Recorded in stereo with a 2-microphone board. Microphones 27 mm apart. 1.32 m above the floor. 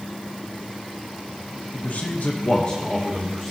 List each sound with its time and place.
1.7 s a man speaking: 75° left (ahead or behind), 1.2 m; by 3.5 s 5° left (ahead or behind), 1.6 m